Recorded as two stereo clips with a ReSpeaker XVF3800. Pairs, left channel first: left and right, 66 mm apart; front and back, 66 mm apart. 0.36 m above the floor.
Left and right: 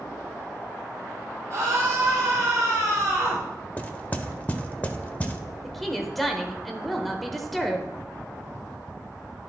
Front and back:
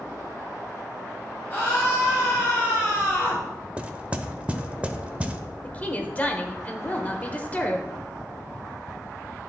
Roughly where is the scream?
Ahead right.